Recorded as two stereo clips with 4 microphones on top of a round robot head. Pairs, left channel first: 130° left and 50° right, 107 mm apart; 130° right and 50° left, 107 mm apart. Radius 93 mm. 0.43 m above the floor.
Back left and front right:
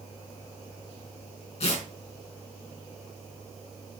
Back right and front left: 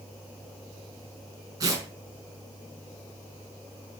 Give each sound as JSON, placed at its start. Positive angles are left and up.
{"t": 1.6, "sound": "tearing paper", "azimuth_deg": 105, "distance_m": 5.0}